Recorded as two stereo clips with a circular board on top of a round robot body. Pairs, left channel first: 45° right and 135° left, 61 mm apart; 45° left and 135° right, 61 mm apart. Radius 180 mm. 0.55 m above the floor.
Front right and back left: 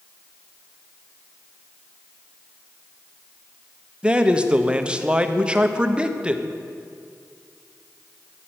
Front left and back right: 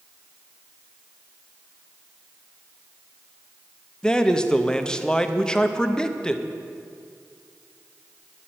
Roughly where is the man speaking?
Left.